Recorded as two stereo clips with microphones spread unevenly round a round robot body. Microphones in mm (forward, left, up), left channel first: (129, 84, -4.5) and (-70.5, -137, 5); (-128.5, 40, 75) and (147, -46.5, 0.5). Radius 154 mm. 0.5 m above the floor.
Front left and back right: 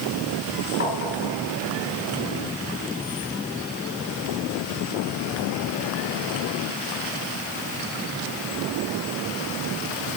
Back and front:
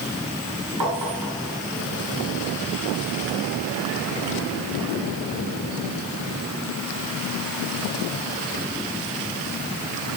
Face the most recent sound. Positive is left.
turn(degrees=-5)